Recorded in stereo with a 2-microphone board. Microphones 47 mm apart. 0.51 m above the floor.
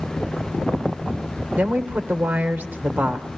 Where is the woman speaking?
40° right (ahead or behind), 1.4 m.